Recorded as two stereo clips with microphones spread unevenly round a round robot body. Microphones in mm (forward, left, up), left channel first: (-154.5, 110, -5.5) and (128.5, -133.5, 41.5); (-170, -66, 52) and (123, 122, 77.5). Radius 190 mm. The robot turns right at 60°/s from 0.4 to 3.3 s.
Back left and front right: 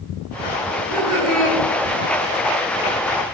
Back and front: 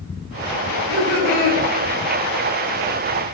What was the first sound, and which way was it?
Laughter, 10° right.